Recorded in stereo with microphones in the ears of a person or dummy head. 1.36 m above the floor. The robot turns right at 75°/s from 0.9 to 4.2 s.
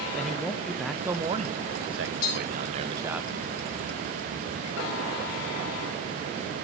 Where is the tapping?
85° left, 3 m; by 2.3 s 75° left (ahead or behind), 3 m.